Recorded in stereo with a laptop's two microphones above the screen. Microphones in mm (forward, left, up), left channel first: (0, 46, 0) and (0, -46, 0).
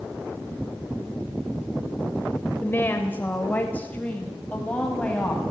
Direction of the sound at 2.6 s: 25° left (ahead or behind).